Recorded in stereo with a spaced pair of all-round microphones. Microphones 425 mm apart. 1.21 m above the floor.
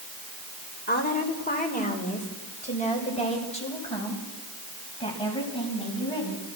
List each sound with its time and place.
0.9 s a woman speaking: 20° left (ahead or behind), 4 m; by 6.5 s 10° left (ahead or behind), 10 m